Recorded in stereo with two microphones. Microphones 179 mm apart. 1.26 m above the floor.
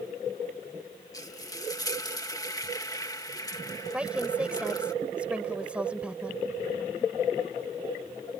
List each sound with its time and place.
1.1 s frying: 20° left (ahead or behind)
3.9 s a woman speaking: 5° right (ahead or behind)